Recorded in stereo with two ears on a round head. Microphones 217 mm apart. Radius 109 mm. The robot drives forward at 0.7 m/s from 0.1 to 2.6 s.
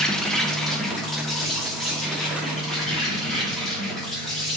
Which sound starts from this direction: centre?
An insect, at 0.0 s.